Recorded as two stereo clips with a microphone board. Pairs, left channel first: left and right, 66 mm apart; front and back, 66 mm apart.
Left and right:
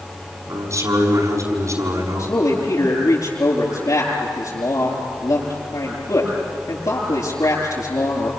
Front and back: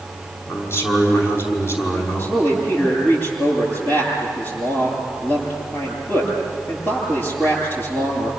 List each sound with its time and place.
0.5 s a man speaking: 50° right, 6 m
2.2 s a man speaking: 60° left, 9.5 m